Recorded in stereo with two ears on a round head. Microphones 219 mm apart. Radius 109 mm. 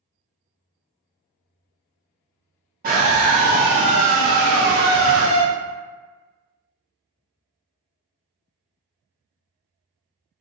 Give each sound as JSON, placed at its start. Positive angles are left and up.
{"t": 2.8, "sound": "a scream", "side_deg": -40, "distance_m": 1.6}